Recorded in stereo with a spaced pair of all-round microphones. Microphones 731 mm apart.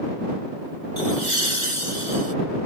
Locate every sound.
1.0 s laughter: 75° right (ahead or behind)